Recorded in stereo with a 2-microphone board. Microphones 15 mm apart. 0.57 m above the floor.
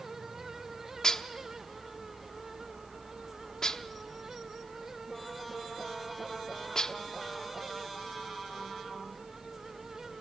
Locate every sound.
1.0 s dishes clattering: 45° left (ahead or behind), 0.7 m